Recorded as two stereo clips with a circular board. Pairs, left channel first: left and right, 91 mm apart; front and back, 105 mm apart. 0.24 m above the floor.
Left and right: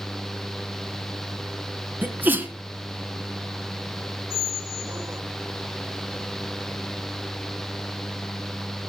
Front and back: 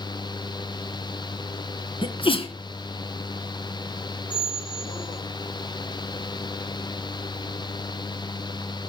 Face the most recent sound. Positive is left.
turn(degrees=-40)